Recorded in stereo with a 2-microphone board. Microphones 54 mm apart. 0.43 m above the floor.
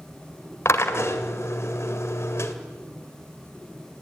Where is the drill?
55° left (ahead or behind), 1.9 m.